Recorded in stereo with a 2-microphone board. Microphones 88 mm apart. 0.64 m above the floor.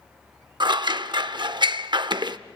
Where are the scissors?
60° right (ahead or behind), 0.6 m.